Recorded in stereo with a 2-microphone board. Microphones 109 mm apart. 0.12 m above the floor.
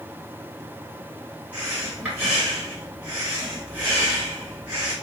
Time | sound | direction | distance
1.5 | breathing | 15° right (ahead or behind) | 1.8 m